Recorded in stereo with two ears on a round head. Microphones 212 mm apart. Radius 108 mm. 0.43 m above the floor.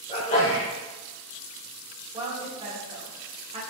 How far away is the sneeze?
About 1.3 m.